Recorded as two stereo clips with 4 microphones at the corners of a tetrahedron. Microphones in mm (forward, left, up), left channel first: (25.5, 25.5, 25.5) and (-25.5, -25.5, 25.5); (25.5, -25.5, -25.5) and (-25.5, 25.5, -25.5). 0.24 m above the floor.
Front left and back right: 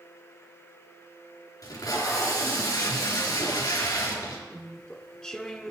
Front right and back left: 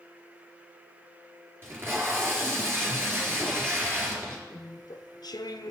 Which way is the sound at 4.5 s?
35° right.